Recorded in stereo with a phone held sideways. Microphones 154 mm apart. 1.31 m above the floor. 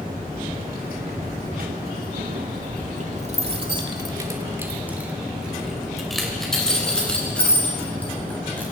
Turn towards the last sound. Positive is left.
turn(degrees=10)  # may be behind; listen again after turning